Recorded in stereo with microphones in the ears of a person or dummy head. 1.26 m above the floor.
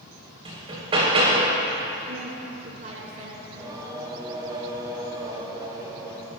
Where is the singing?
25° right (ahead or behind), 3 m.